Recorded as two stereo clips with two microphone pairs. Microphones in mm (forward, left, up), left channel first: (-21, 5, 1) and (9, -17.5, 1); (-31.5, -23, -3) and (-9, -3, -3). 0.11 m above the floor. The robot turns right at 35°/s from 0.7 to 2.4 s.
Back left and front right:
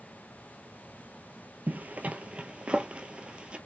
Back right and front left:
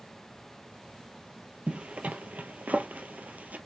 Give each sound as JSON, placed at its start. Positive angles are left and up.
{"t": 1.7, "sound": "a zipper", "azimuth_deg": -10, "distance_m": 0.7}